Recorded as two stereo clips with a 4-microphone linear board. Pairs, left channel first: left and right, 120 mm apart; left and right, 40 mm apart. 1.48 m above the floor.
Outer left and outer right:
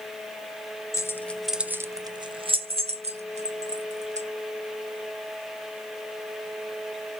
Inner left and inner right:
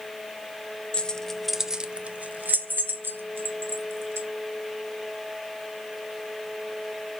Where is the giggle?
I don't hear a giggle.